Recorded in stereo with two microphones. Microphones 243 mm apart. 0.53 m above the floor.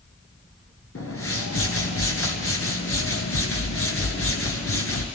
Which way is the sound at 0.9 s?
60° left (ahead or behind).